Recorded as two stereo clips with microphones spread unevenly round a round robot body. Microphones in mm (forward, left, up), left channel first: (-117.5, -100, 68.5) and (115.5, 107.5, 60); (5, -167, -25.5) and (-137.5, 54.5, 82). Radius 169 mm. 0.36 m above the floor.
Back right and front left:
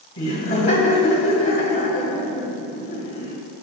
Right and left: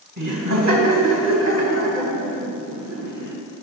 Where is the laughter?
Straight behind, 2 m.